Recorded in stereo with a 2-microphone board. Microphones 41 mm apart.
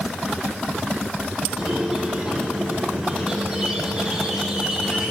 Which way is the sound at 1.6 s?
15° right (ahead or behind).